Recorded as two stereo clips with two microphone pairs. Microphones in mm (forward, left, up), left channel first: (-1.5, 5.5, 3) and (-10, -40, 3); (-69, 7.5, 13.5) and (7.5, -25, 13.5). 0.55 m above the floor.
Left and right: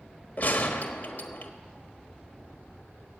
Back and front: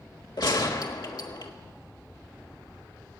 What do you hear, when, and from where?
0.4 s a gunshot: 130° left, 1.2 m